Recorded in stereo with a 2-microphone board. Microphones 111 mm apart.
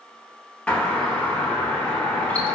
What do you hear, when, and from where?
0.7 s a doorbell: 10° left (ahead or behind), 0.8 m